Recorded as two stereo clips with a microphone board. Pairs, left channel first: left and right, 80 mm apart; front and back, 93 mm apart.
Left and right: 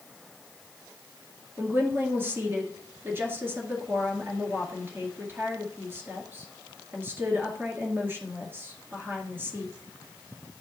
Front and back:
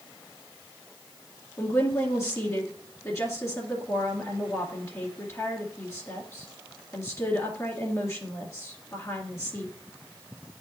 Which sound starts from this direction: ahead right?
A woman speaking, at 1.6 s.